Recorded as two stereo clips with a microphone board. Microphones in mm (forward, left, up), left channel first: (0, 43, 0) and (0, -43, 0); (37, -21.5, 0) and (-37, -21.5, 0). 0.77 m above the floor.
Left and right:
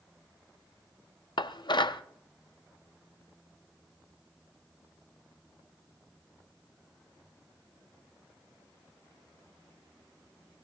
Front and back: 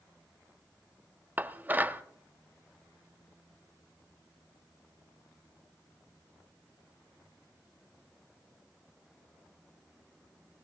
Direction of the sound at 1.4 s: 115° left.